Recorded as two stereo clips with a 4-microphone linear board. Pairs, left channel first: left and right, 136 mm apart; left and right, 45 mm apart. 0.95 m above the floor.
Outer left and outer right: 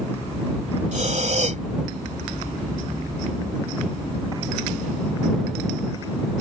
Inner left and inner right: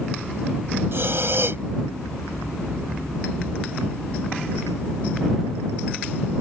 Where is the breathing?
60° right (ahead or behind).